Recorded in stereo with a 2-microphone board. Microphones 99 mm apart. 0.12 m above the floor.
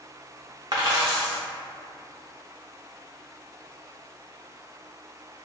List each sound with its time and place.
0.7 s a dropped coin: 50° right (ahead or behind), 0.6 m